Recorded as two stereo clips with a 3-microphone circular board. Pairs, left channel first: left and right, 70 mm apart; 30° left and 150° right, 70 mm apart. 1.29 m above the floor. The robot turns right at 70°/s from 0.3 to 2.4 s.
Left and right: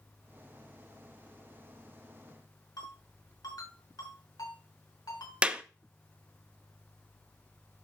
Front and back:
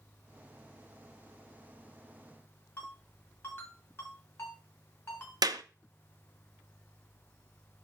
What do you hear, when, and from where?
2.8 s a ringtone: 90° left, 5.5 m
5.4 s a clap: 165° right, 0.8 m